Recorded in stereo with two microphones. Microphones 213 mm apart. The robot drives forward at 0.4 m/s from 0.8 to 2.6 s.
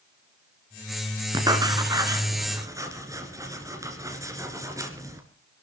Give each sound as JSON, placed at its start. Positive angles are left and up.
{"t": 1.3, "sound": "writing", "side_deg": -20, "distance_m": 1.5}